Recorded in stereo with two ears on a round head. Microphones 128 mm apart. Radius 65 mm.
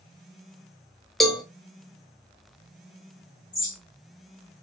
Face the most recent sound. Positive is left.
turn(degrees=5)  # may be behind; listen again after turning